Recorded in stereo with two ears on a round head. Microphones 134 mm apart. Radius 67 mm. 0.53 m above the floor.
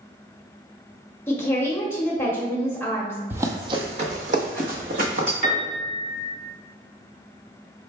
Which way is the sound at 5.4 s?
70° right (ahead or behind).